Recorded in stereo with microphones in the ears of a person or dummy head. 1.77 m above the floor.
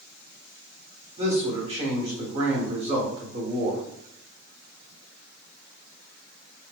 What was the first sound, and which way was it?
A man speaking, 30° right (ahead or behind).